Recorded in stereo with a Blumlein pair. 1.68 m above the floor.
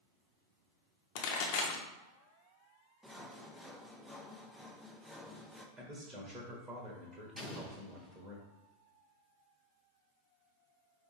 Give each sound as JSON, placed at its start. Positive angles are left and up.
{"t": 1.1, "sound": "a pop", "azimuth_deg": 45, "distance_m": 0.8}
{"t": 3.0, "sound": "sawing", "azimuth_deg": 0, "distance_m": 0.5}
{"t": 5.8, "sound": "a man speaking", "azimuth_deg": -15, "distance_m": 1.1}
{"t": 7.4, "sound": "an explosion", "azimuth_deg": 0, "distance_m": 1.0}